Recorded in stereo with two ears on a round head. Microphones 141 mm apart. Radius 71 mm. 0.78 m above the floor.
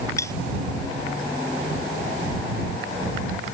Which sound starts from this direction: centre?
Cutlery clinking, at 0.2 s.